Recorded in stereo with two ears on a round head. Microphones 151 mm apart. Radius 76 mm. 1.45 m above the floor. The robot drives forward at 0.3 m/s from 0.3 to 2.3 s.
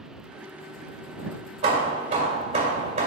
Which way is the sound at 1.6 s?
40° right (ahead or behind).